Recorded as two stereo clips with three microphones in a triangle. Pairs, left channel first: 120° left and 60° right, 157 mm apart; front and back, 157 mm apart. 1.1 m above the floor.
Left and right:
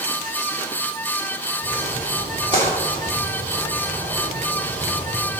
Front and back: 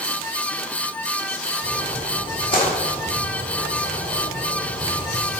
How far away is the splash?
About 3 m.